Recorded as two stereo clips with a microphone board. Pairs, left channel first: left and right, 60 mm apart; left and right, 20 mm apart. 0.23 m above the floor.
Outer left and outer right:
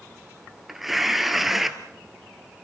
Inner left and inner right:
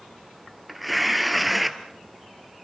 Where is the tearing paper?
5° right (ahead or behind), 1.6 m.